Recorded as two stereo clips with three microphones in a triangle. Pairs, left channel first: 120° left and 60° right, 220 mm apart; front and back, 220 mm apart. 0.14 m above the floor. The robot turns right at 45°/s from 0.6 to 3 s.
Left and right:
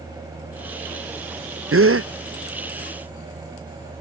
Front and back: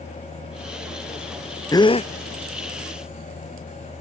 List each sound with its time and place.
1.7 s a gasp: 75° right; by 2.1 s 55° right